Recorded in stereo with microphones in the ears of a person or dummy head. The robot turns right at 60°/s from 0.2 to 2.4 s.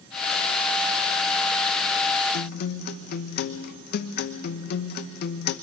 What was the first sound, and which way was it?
A guitar, 60° left (ahead or behind).